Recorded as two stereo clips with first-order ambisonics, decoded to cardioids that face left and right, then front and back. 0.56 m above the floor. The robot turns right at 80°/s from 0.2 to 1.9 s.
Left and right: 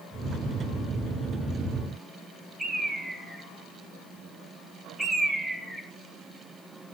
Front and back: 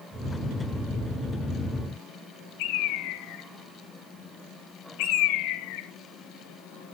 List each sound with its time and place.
2.6 s a bird: 5° right, 1.6 m